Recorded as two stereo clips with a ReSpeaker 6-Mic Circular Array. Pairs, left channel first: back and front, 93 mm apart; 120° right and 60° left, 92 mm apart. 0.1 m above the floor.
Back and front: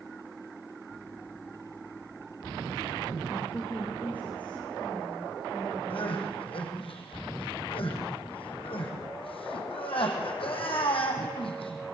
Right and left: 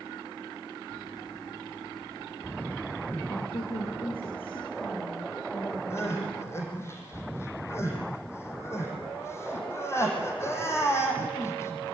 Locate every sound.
3.3 s a woman speaking: 110° right, 6 m; by 6.9 s 100° right, 8 m
5.9 s crying: straight behind, 5 m